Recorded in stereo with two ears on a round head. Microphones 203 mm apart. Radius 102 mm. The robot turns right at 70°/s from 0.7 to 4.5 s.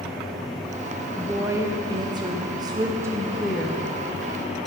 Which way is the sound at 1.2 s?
5° right (ahead or behind).